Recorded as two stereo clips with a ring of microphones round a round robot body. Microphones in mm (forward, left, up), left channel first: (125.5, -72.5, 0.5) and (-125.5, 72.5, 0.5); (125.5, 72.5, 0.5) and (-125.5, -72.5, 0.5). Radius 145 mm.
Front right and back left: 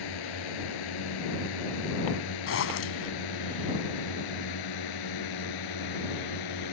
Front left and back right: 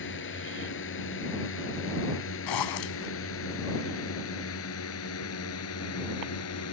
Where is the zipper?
15° left.